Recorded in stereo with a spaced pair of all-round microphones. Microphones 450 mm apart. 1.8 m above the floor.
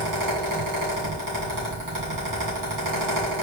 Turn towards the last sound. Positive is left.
turn(degrees=-45)  # may be behind; listen again after turning